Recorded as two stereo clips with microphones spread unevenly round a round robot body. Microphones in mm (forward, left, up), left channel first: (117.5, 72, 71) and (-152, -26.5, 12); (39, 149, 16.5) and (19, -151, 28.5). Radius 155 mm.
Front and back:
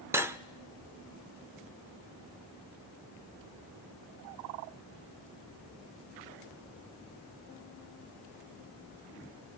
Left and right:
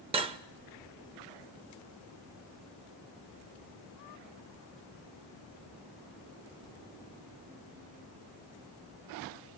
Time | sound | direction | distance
0.1 | cutlery clinking | 140° right | 0.5 m